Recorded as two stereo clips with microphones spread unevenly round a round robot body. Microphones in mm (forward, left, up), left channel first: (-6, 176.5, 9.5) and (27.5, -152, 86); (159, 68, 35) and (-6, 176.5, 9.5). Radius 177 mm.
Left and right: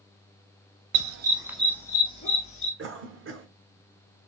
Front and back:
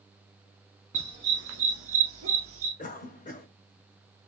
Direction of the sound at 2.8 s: 40° right.